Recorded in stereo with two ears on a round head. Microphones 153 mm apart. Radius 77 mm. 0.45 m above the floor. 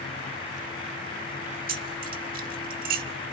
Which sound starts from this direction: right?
Keys jangling, at 1.7 s.